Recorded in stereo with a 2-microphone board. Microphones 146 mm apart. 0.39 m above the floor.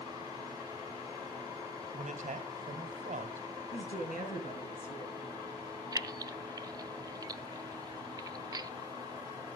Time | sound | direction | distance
1.9 | a man speaking | 60° right (ahead or behind) | 2.5 m
3.7 | a woman speaking | 55° left (ahead or behind) | 3.5 m
5.9 | keys jangling | 25° right (ahead or behind) | 0.6 m